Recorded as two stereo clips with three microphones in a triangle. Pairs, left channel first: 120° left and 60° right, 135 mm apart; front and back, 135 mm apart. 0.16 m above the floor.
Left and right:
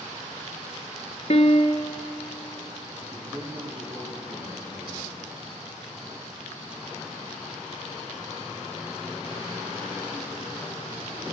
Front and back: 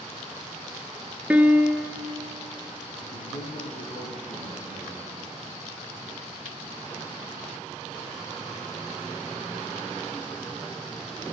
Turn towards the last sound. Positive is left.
turn(degrees=10)